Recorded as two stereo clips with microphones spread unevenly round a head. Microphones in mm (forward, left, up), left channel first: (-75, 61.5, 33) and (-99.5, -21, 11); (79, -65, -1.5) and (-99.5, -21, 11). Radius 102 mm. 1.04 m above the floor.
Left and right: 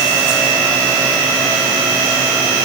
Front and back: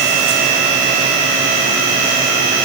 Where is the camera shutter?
No camera shutter in this recording.